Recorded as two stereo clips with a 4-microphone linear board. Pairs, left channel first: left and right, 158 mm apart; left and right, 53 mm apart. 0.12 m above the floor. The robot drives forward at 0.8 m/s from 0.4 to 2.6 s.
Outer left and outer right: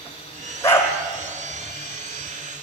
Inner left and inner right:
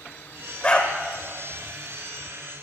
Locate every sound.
0.6 s a dog barking: 15° left (ahead or behind), 1.9 m